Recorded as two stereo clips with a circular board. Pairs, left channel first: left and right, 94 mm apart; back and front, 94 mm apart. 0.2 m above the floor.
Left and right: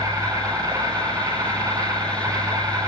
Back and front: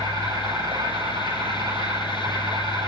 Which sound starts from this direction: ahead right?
An insect, at 0.0 s.